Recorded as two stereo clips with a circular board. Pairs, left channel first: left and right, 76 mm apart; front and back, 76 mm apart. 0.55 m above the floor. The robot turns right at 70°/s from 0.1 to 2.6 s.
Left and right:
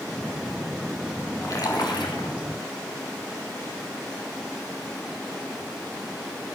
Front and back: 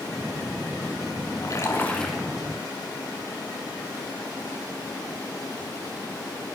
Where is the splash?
40° left, 5.5 m; by 2.3 s 100° left, 5.5 m.